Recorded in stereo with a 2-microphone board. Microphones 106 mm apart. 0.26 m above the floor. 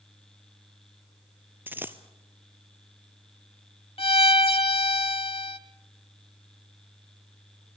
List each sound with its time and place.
1.7 s a dropped coin: 20° right (ahead or behind), 0.9 m
4.0 s a violin: 60° left (ahead or behind), 0.8 m